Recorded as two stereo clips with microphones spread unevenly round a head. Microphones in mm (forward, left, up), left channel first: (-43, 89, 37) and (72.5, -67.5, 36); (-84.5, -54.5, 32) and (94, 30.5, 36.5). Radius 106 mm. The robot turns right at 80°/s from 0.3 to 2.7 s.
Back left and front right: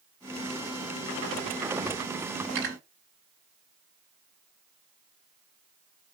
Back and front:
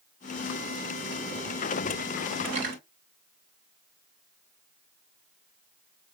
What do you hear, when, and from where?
2.5 s cutlery clinking: 35° right, 4 m; by 2.8 s 20° right, 4 m